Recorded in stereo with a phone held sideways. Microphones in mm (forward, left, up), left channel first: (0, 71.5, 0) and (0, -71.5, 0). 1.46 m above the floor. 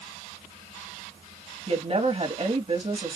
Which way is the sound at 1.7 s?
40° right (ahead or behind).